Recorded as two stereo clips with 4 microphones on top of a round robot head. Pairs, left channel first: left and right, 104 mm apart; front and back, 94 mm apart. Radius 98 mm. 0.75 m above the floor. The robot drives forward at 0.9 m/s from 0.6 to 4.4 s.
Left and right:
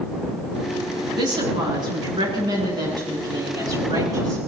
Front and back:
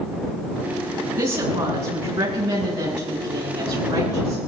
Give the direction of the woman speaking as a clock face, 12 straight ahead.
4 o'clock.